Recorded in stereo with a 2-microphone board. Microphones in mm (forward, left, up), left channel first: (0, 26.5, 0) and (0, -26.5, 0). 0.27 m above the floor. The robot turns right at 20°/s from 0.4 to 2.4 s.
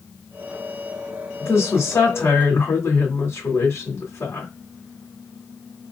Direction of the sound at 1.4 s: 50° left (ahead or behind).